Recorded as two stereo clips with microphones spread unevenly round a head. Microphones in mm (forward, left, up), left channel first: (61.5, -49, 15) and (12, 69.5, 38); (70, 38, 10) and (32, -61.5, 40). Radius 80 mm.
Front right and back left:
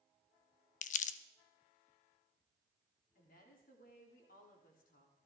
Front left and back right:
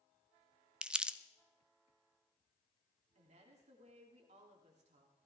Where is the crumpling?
45° right, 0.5 m.